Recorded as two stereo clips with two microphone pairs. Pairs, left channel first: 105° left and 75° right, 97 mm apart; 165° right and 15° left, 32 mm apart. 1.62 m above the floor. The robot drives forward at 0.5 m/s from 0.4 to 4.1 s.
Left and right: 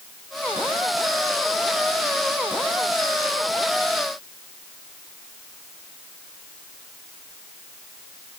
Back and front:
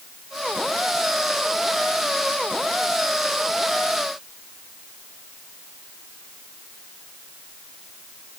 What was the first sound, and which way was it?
Only background noise.